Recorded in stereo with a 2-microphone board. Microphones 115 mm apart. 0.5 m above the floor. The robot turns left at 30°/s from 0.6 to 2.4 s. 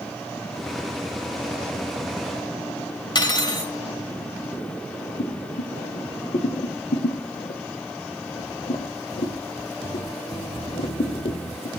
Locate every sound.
3.1 s cutlery clinking: 40° left (ahead or behind), 1.2 m
5.2 s boiling: 70° left (ahead or behind), 0.6 m